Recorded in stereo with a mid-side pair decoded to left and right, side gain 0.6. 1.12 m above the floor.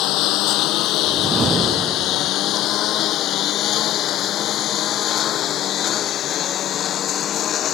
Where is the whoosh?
30° right.